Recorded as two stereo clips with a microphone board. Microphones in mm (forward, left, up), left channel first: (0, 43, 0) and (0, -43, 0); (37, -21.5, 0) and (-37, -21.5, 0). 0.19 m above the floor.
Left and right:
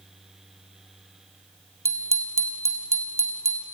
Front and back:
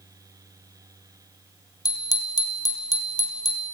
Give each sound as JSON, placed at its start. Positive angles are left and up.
{"t": 1.9, "sound": "a bicycle bell", "azimuth_deg": -30, "distance_m": 3.5}